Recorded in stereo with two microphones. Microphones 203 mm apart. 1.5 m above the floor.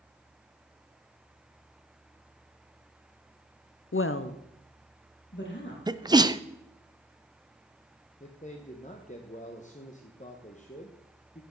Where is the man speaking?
35° left (ahead or behind), 1.1 m.